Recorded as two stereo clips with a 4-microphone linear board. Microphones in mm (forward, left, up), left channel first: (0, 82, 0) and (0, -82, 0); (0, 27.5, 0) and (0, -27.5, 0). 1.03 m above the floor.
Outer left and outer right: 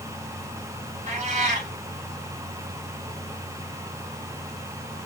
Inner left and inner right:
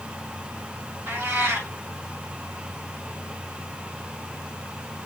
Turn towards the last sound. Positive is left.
turn(degrees=-50)  # may be behind; listen again after turning